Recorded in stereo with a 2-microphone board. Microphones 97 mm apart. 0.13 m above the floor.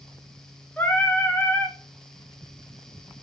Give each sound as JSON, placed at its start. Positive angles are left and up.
{"t": 0.8, "sound": "singing", "side_deg": 20, "distance_m": 0.8}